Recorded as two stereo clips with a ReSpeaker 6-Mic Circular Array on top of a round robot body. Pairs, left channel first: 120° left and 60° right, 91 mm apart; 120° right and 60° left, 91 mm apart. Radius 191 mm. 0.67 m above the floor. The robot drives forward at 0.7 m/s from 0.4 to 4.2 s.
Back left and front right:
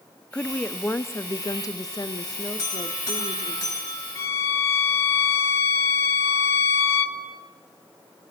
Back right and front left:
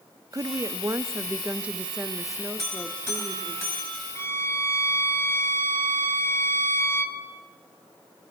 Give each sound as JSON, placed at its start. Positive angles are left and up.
{"t": 0.3, "sound": "a woman speaking", "azimuth_deg": 45, "distance_m": 1.2}
{"t": 2.6, "sound": "a buzzer", "azimuth_deg": 175, "distance_m": 8.5}
{"t": 4.2, "sound": "a violin", "azimuth_deg": 180, "distance_m": 2.5}